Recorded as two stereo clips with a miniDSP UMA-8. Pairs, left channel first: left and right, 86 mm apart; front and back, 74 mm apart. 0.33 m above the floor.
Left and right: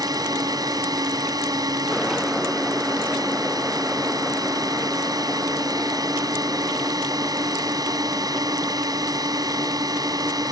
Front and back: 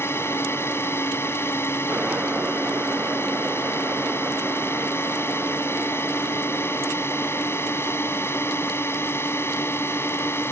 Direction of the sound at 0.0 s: 55° right.